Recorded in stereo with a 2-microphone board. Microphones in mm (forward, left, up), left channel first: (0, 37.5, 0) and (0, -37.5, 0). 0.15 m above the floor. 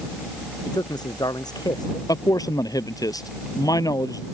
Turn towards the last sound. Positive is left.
turn(degrees=60)  # may be behind; listen again after turning